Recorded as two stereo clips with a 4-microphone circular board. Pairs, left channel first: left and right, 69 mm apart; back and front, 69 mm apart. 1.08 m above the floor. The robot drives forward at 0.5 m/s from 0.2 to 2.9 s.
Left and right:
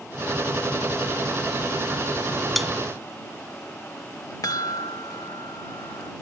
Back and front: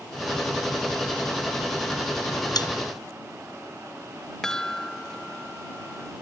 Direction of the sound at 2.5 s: Straight behind.